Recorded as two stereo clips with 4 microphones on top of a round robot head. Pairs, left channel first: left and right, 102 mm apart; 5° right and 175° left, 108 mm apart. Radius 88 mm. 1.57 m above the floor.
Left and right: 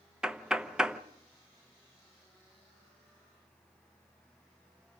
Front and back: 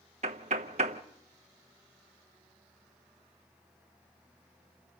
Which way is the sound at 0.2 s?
170° right.